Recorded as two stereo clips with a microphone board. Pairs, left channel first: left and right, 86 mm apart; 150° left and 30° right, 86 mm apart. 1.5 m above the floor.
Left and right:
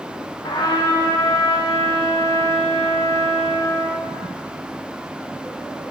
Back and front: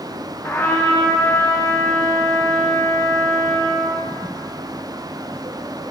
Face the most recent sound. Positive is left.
turn(degrees=95)